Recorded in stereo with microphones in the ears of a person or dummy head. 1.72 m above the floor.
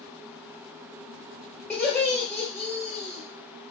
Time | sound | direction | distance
1.7 | laughter | 10° left (ahead or behind) | 1.4 m